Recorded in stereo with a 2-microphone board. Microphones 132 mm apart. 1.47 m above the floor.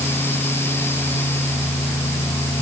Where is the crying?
I don't hear crying.